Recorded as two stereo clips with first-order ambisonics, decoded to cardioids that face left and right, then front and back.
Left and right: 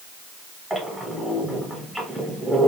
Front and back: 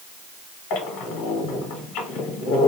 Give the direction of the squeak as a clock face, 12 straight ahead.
12 o'clock.